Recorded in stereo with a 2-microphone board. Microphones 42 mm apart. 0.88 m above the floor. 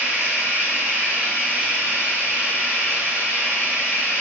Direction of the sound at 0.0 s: 70° right (ahead or behind).